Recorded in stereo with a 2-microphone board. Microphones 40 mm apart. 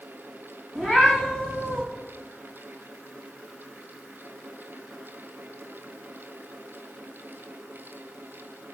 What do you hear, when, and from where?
0.8 s a cat meowing: 20° left (ahead or behind), 6 m